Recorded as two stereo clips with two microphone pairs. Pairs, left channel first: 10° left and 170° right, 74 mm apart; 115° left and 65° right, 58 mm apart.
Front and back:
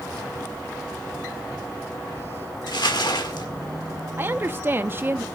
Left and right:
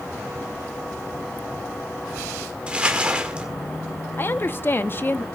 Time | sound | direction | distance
2.7 | crumpling | 5° left | 1.7 m
4.2 | a woman speaking | 135° left | 0.6 m